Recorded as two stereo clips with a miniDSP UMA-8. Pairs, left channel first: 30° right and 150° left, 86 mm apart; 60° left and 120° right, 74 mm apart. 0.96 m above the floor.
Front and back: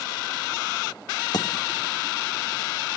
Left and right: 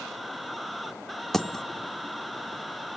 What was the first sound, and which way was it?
A dropped coin, 25° right.